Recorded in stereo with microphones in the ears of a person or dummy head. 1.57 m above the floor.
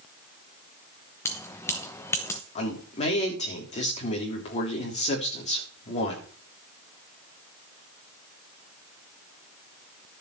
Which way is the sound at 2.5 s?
35° left (ahead or behind).